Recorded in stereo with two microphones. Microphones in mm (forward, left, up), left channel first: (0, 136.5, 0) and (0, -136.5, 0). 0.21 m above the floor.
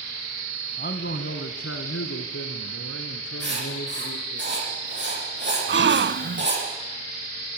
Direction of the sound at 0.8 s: 35° left (ahead or behind).